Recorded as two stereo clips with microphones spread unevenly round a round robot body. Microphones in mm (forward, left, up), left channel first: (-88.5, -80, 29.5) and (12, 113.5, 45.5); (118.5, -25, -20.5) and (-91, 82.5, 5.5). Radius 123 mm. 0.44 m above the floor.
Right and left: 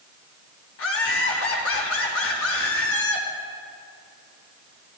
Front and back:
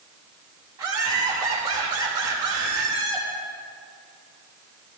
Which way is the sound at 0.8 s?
130° right.